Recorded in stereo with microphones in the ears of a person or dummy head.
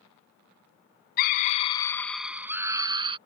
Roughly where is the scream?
Left.